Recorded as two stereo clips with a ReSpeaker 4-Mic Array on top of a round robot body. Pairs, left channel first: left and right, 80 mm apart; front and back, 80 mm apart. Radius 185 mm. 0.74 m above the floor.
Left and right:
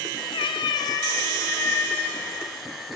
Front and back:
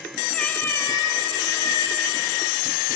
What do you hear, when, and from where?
0.3 s a cat meowing: 80° left, 1.3 m; by 2.3 s 20° left, 3.5 m